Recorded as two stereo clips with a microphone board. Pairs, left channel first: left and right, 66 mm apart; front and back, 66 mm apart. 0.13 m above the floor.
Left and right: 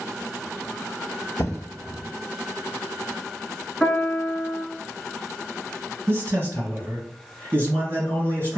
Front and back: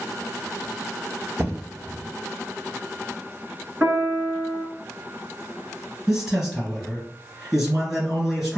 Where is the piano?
165° left, 1.1 m.